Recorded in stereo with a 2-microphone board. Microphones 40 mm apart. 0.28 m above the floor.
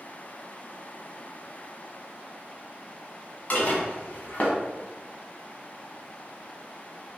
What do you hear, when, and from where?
3.5 s dishes clattering: 40° left (ahead or behind), 1.2 m